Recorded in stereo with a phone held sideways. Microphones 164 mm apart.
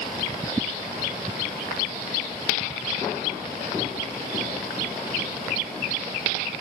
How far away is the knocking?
I don't hear knocking.